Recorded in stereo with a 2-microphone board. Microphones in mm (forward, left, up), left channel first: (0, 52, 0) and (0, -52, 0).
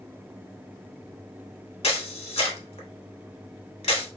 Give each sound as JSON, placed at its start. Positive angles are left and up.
{"t": 1.8, "sound": "a camera shutter", "side_deg": 80, "distance_m": 0.9}